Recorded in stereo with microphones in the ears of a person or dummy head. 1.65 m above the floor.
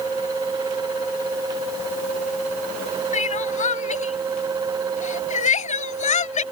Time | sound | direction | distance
3.1 | crying | 30° left (ahead or behind) | ?